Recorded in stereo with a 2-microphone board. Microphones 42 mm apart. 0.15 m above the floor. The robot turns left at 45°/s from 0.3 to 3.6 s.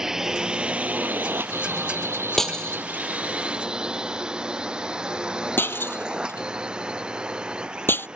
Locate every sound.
0.0 s a drone: 10° right (ahead or behind); by 8.2 s 25° right (ahead or behind)
2.4 s breaking glass: 5° left (ahead or behind); by 8.1 s 60° left (ahead or behind)